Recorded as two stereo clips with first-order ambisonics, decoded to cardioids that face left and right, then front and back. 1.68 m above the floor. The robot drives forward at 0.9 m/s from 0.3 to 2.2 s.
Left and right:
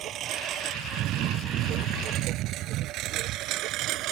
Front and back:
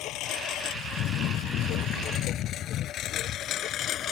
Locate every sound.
0.0 s a lawn mower: 40° right; by 4.1 s 50° right